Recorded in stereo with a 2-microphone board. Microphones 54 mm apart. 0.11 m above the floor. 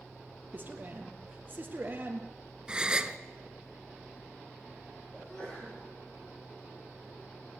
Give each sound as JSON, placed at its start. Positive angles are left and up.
{"t": 0.5, "sound": "a man speaking", "side_deg": -35, "distance_m": 3.0}
{"t": 2.7, "sound": "a gasp", "side_deg": -20, "distance_m": 1.0}
{"t": 5.1, "sound": "a sneeze", "side_deg": 15, "distance_m": 6.0}